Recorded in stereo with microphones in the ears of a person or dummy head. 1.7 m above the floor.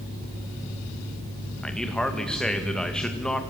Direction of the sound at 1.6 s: Centre (ahead or behind).